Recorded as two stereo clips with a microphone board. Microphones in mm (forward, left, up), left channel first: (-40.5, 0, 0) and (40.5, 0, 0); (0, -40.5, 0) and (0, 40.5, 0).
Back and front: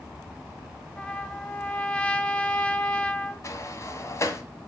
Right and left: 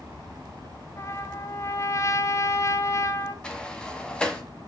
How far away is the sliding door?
About 1.8 m.